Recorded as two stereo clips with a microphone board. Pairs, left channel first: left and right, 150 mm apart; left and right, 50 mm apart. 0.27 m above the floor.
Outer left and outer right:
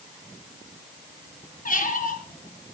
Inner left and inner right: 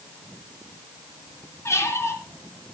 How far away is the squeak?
About 2.5 m.